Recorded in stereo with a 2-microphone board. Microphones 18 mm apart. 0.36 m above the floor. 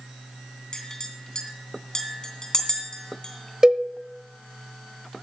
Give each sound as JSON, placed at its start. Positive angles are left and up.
{"t": 0.7, "sound": "a clink", "side_deg": 35, "distance_m": 2.5}
{"t": 3.6, "sound": "a cowbell", "side_deg": -50, "distance_m": 0.9}